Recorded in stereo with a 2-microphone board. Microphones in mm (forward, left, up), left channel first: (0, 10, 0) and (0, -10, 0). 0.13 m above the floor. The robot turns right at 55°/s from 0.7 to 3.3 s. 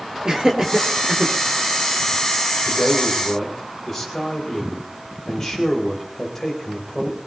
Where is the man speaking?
15° right, 8 m; by 7.2 s 20° left, 8 m.